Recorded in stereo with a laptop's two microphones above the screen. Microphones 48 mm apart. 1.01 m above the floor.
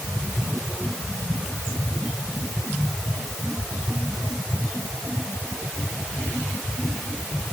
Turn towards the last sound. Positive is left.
No sound to turn to.